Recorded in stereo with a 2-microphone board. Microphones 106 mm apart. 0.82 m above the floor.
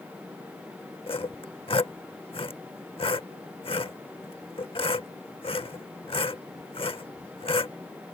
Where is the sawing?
60° left (ahead or behind).